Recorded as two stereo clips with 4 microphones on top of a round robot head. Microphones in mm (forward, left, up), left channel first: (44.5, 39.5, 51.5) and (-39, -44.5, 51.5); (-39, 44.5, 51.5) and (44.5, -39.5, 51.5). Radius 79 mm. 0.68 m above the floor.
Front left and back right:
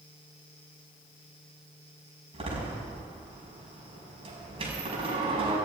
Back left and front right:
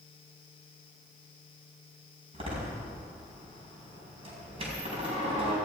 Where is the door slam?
90° right, 5 m.